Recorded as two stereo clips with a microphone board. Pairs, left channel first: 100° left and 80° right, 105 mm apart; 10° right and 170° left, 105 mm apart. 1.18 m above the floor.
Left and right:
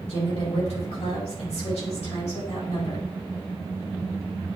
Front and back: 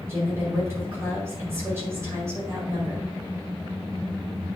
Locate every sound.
0.1 s a woman speaking: 105° left, 5 m